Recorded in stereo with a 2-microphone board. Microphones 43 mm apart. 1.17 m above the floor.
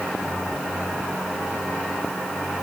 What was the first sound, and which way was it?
Only background noise.